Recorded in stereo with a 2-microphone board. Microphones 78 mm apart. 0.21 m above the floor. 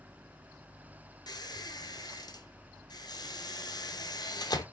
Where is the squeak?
60° left (ahead or behind), 0.6 m.